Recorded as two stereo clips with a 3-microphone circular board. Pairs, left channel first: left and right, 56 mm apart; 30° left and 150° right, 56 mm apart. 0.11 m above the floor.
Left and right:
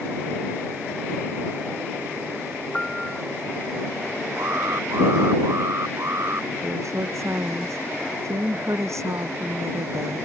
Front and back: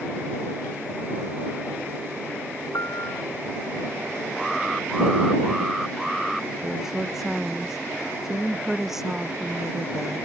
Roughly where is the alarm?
Ahead right.